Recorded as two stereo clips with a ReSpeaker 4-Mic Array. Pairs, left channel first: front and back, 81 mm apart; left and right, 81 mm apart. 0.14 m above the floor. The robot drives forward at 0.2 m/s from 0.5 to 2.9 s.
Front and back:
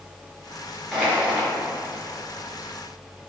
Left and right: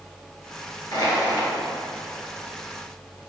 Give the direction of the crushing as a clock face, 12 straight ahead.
9 o'clock.